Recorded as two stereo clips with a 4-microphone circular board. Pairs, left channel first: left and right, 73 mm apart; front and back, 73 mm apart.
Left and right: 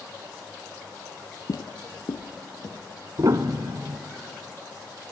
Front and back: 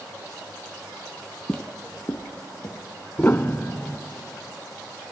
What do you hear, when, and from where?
1.5 s footsteps: 80° left, 0.8 m; by 2.8 s 45° left, 2.5 m
3.2 s a piano: 60° right, 0.7 m